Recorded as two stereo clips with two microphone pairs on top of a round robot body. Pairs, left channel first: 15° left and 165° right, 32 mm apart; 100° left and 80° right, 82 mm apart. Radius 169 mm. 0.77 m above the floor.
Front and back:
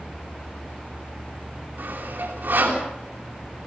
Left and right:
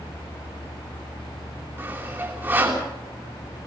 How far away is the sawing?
About 5.5 m.